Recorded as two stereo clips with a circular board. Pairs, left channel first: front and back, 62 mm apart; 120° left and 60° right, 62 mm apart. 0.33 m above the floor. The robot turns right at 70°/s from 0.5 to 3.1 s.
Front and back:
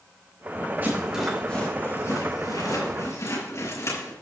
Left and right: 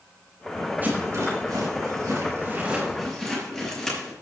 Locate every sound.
0.8 s a rattle: 125° right, 5.5 m; by 4.1 s 35° left, 5.5 m